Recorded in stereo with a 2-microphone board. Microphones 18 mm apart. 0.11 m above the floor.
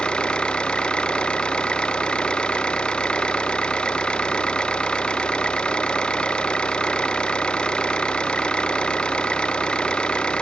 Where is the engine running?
60° left (ahead or behind).